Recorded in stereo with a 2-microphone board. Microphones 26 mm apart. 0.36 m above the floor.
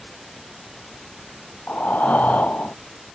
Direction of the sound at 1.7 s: 75° left (ahead or behind).